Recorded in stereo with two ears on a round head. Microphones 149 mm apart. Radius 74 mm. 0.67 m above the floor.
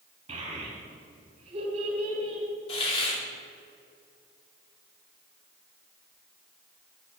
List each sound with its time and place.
0.3 s a child speaking: 40° right (ahead or behind), 4 m
2.7 s a hiss: 35° left (ahead or behind), 1.9 m